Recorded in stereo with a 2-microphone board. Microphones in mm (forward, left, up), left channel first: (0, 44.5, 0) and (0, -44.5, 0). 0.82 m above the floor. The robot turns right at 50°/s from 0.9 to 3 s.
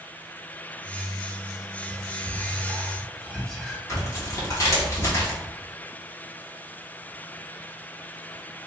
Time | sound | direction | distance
1.9 | whispering | 45° right (ahead or behind) | 1.6 m
3.9 | tearing paper | 35° left (ahead or behind) | 1.5 m